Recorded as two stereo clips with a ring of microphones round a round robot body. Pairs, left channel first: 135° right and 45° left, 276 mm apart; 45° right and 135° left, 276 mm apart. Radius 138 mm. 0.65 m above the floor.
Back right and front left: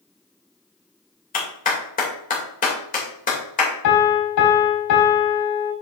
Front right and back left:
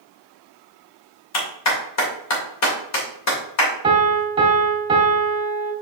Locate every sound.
1.3 s a clap: 75° right, 2.5 m
3.8 s a piano: 155° right, 1.9 m